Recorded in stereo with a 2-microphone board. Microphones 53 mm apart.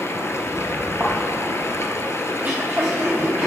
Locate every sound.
0.0 s running water: 60° left (ahead or behind), 0.9 m
1.0 s a thud: 20° right (ahead or behind), 3 m
2.3 s throat clearing: 20° right (ahead or behind), 3.5 m